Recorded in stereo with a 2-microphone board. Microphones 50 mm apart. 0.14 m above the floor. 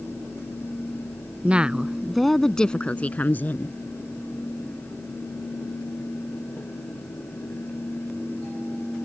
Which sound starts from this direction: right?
A woman speaking, at 1.4 s.